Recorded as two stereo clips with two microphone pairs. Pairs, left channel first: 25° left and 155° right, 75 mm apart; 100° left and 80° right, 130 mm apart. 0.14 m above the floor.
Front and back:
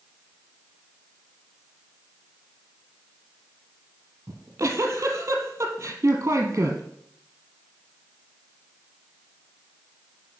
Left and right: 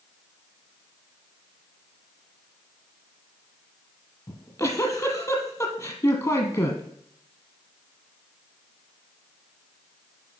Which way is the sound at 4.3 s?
160° left.